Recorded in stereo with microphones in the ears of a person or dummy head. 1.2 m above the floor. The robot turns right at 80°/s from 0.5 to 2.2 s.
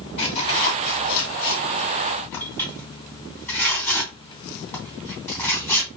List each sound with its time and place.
0.2 s tearing paper: 30° left (ahead or behind), 2.5 m; by 5.9 s 15° left (ahead or behind), 2.5 m